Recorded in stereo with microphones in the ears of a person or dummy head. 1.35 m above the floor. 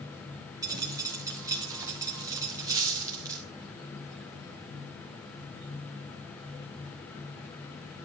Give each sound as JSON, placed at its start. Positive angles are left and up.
{"t": 0.6, "sound": "a dropped coin", "side_deg": -15, "distance_m": 1.3}